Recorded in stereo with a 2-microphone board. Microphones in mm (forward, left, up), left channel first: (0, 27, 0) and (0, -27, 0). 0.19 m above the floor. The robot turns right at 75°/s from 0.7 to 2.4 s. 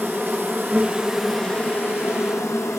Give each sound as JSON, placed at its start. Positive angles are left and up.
{"t": 0.0, "sound": "an insect", "azimuth_deg": -40, "distance_m": 2.5}